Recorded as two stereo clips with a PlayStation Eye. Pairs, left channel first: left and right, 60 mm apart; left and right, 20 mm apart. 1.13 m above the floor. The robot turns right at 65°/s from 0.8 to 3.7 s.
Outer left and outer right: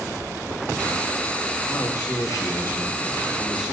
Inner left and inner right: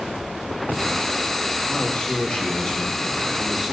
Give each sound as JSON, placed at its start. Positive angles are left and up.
{"t": 1.7, "sound": "a man speaking", "azimuth_deg": 60, "distance_m": 1.5}